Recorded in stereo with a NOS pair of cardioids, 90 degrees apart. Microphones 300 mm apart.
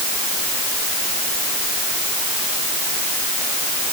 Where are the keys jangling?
I don't hear keys jangling.